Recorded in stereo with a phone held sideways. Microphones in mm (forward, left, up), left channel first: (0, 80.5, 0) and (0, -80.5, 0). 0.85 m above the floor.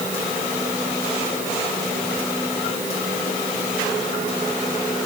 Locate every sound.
Only background noise.